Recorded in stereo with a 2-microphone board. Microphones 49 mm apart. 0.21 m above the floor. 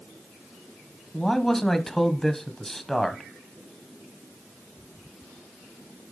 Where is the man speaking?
10° left (ahead or behind), 1.0 m.